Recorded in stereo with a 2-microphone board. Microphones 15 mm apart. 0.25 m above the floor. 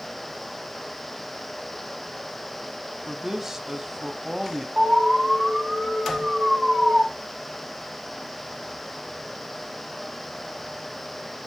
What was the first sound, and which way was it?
A man speaking, 20° right (ahead or behind).